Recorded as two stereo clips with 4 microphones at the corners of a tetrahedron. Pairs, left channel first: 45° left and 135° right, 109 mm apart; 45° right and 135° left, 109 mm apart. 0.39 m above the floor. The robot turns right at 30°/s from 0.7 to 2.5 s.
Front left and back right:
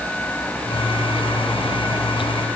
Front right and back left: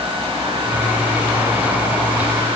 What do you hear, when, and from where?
Only background noise.